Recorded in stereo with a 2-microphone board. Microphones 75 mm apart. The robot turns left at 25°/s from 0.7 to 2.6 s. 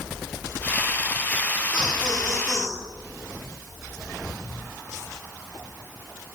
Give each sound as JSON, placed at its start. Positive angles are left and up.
{"t": 1.7, "sound": "laughter", "side_deg": 70, "distance_m": 6.0}